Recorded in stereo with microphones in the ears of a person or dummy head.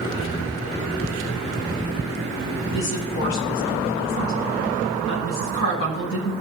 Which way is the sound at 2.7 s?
90° left.